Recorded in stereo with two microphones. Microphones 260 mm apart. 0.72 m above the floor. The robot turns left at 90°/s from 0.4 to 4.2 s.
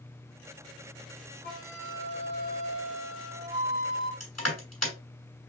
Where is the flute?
40° right, 1.5 m; by 4.1 s 80° left, 1.5 m.